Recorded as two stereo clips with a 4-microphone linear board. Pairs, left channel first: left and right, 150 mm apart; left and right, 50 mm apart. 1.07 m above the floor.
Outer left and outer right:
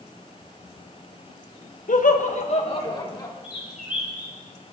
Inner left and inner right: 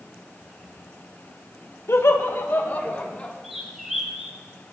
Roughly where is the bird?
Centre.